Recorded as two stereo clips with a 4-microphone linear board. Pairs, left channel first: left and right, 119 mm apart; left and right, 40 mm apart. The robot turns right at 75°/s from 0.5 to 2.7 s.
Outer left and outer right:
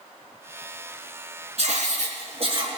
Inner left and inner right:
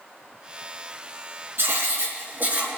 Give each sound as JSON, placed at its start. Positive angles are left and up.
{"t": 1.6, "sound": "writing", "azimuth_deg": -120, "distance_m": 3.5}